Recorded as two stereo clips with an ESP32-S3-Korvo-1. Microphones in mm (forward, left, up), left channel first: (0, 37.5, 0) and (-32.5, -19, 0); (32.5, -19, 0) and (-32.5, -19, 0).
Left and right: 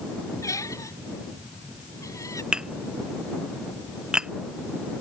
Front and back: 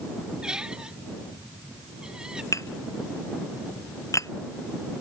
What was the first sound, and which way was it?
A squeak, 100° left.